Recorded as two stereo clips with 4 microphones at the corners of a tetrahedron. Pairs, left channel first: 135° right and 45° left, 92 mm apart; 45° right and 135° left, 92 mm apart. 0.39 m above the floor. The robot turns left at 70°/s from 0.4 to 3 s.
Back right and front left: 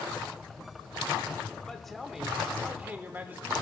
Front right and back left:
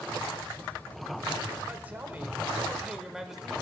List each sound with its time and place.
1.6 s a man speaking: 160° left, 0.9 m; by 3.6 s 65° left, 0.9 m